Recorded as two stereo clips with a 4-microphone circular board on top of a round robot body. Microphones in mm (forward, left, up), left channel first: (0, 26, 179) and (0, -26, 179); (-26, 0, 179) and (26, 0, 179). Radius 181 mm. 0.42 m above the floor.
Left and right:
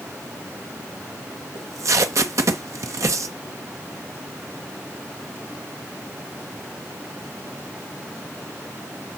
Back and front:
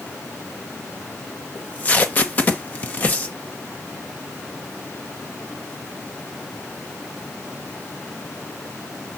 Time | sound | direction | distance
1.6 | tape being pulled | 120° right | 0.7 m